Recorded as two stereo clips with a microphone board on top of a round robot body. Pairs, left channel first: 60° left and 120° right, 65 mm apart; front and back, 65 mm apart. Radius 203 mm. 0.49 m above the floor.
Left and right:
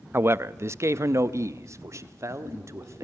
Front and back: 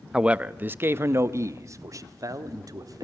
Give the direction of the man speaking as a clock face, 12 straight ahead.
4 o'clock.